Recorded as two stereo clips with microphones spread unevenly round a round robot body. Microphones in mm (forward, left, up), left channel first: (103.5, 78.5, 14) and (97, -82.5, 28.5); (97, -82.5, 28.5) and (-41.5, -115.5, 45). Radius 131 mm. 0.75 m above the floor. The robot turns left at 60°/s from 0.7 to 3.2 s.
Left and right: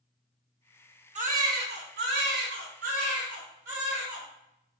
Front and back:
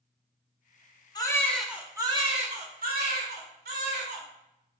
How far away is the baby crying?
About 1.9 m.